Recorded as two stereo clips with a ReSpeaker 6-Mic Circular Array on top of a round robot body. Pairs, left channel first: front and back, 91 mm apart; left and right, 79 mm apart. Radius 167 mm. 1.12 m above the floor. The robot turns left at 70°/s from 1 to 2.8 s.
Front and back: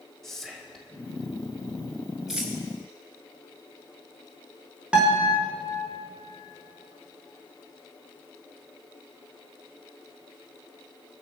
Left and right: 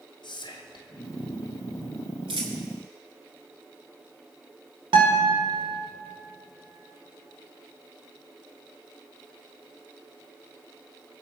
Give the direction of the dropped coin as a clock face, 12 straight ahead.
3 o'clock.